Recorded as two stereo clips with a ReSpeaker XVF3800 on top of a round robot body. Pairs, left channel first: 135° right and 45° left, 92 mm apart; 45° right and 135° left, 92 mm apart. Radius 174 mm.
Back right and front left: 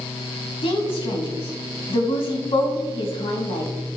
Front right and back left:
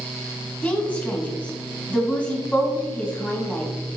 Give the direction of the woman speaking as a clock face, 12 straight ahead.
4 o'clock.